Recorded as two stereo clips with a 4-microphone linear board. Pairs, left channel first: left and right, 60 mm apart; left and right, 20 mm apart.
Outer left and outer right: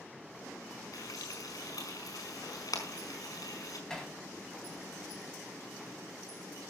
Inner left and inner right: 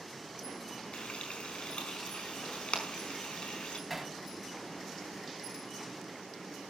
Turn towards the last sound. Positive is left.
turn(degrees=10)  # may be behind; listen again after turning